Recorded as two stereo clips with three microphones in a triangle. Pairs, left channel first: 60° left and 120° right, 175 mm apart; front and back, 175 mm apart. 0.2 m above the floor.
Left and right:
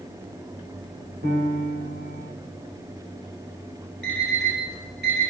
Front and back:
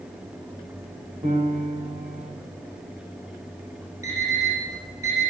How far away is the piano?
About 3 m.